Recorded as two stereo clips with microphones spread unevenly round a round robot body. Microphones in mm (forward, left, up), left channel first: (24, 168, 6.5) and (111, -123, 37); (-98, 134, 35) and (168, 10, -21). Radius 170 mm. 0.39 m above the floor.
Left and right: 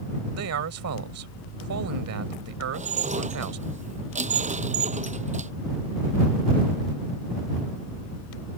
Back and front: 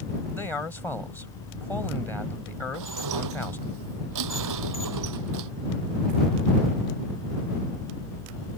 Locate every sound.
0.3 s a man speaking: 115° right
2.7 s dishes clattering: 5° right